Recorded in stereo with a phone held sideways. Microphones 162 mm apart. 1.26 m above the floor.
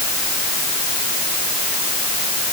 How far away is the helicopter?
No helicopter in this recording.